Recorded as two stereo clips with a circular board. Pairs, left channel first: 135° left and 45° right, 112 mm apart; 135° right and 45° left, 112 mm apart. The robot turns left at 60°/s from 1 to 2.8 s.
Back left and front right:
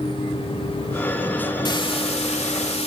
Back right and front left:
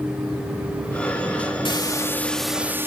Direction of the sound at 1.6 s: 175° right.